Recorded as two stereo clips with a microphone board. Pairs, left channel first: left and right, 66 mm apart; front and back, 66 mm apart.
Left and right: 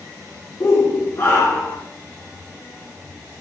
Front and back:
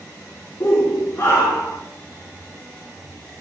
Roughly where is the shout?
Ahead left.